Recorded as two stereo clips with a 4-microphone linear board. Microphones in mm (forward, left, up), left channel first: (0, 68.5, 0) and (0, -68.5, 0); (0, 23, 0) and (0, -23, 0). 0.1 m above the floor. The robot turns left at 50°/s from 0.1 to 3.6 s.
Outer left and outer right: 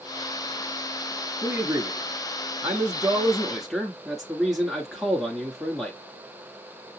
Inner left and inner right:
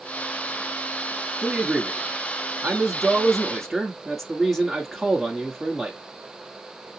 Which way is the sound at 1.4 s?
20° right (ahead or behind).